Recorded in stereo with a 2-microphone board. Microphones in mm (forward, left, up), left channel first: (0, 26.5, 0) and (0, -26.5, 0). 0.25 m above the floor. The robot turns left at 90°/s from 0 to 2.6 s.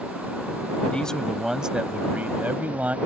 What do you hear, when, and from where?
0.9 s a man speaking: 40° left; by 3.0 s 110° right